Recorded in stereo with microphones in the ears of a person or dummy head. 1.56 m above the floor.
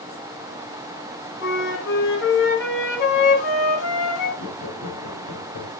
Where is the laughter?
40° left (ahead or behind), 3 m.